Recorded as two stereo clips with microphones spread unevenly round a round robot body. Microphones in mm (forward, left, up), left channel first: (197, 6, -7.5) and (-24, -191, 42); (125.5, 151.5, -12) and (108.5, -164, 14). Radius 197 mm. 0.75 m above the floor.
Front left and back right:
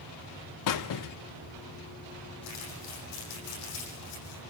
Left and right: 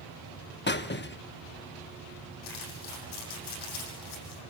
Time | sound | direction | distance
0.7 | a squeak | 25° left | 0.8 m
2.4 | crumpling | 95° left | 8.5 m